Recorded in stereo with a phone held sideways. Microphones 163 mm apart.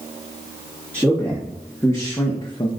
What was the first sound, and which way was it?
A man speaking, 10° left (ahead or behind).